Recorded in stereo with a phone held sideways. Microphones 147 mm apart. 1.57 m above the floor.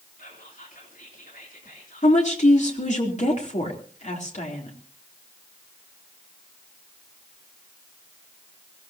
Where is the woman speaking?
55° left (ahead or behind), 3.5 m.